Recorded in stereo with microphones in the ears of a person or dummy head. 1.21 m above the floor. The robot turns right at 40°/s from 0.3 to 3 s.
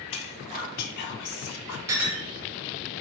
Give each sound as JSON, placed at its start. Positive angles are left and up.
{"t": 0.1, "sound": "whispering", "azimuth_deg": 30, "distance_m": 0.5}
{"t": 1.9, "sound": "a clink", "side_deg": -20, "distance_m": 0.8}